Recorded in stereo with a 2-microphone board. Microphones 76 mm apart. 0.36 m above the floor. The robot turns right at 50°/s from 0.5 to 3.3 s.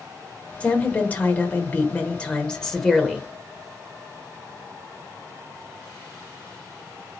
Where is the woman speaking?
20° left (ahead or behind), 0.9 m; by 3.2 s centre (ahead or behind), 0.9 m.